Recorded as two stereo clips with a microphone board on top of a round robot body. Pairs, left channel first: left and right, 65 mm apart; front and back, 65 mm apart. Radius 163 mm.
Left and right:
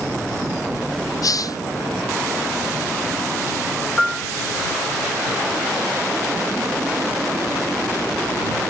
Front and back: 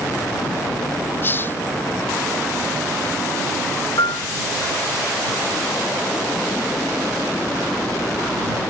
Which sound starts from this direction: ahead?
A piano, at 4.0 s.